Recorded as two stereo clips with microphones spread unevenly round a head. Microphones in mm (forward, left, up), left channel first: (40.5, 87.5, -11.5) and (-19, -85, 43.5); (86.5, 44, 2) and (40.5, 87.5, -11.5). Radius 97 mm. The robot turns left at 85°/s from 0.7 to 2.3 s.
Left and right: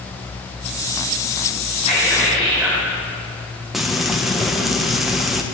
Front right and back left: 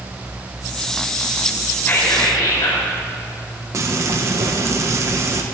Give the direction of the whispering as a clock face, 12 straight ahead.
11 o'clock.